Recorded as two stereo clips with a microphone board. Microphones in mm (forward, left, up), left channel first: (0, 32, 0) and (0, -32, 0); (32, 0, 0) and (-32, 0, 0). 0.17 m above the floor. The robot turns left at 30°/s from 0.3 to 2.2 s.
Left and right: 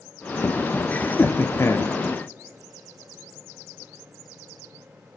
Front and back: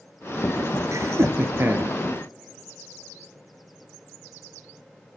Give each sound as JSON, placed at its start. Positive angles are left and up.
{"t": 0.9, "sound": "laughter", "azimuth_deg": 155, "distance_m": 2.0}